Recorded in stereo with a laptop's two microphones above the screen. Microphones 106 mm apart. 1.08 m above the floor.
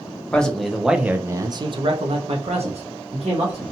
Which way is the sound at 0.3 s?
10° left (ahead or behind).